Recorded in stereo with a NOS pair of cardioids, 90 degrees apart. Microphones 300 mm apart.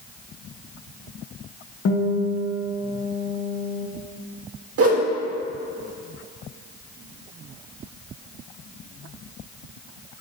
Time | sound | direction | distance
1.9 | a guitar | 50° left | 1.7 m
4.8 | a whoosh | 50° right | 1.8 m